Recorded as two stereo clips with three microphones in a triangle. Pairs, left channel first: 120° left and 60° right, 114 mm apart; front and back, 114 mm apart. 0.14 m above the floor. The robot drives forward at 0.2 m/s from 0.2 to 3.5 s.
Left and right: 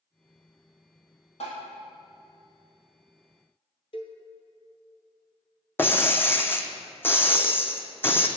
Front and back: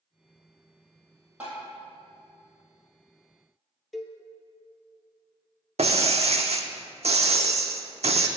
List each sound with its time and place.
1.4 s tapping: 105° left, 2.5 m
3.9 s a cowbell: 90° left, 0.6 m
5.8 s breaking glass: 170° right, 0.6 m